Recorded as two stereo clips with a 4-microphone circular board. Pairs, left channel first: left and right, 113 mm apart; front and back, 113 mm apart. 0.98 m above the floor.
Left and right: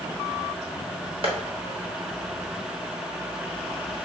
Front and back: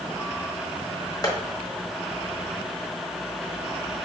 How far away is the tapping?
About 1.0 m.